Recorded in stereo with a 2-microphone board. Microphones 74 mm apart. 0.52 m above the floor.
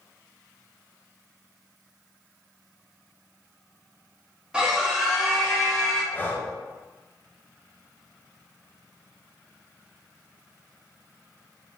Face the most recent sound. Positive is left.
turn(degrees=25)  # may be behind; listen again after turning